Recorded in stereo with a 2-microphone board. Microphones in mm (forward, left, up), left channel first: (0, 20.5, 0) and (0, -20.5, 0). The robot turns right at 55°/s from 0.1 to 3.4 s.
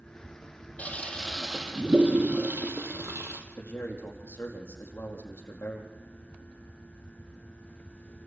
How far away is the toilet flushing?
About 2.5 m.